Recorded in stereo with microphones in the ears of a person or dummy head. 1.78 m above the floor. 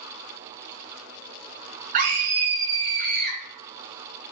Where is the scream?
45° right (ahead or behind), 1.1 m.